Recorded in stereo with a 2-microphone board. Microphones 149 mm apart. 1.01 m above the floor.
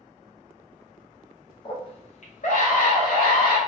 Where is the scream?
35° left (ahead or behind), 0.9 m; by 3.6 s 75° left (ahead or behind), 1.5 m.